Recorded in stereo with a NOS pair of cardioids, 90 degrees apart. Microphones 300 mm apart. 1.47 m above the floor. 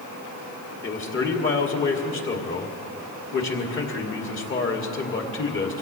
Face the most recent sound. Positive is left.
turn(degrees=40)